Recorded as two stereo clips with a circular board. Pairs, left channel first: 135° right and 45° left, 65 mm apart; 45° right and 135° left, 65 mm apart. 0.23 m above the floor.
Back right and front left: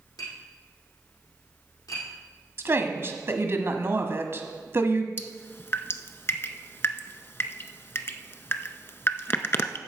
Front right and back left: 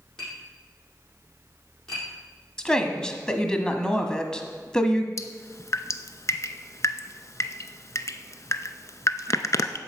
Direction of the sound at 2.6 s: 25° left.